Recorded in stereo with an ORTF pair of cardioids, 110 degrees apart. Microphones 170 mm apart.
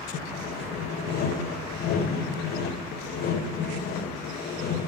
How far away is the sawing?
About 2 m.